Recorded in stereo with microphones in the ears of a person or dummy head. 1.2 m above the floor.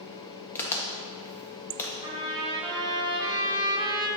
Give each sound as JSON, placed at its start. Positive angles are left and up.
{"t": 0.6, "sound": "a crack", "side_deg": 15, "distance_m": 1.3}
{"t": 2.0, "sound": "a trumpet", "side_deg": -25, "distance_m": 1.7}